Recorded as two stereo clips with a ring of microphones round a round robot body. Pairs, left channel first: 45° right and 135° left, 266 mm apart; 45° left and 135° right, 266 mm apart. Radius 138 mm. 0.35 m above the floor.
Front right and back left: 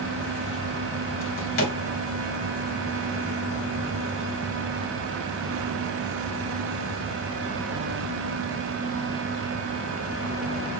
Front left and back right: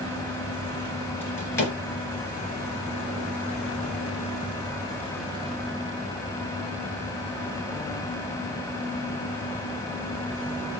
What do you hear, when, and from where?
1.2 s a drawer: 35° right, 2.5 m